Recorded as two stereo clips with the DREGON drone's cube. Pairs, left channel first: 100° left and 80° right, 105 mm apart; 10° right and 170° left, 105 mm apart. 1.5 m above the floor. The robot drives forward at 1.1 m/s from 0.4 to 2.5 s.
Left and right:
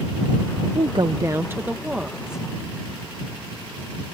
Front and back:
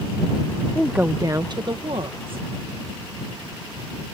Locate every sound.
0.8 s a woman speaking: 90° right; by 2.5 s 165° right